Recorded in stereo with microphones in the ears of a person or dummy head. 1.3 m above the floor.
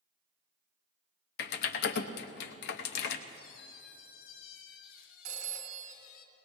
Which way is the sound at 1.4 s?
70° left (ahead or behind).